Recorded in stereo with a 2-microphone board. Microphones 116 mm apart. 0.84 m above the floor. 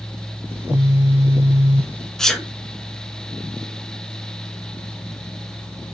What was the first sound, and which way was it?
A phone buzzing, 20° right (ahead or behind).